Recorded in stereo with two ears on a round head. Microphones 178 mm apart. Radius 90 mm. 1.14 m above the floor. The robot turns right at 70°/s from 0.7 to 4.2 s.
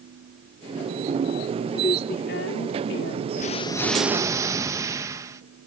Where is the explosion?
135° left; by 5.4 s 165° right.